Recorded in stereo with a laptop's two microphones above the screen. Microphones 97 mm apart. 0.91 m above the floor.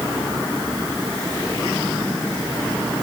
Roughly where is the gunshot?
I don't hear a gunshot.